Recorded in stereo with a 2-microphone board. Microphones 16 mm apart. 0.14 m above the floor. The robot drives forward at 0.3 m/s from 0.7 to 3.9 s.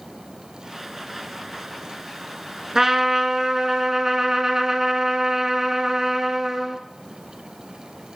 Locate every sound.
2.8 s a trumpet: 30° right (ahead or behind), 0.7 m; by 6.8 s 40° right (ahead or behind), 0.6 m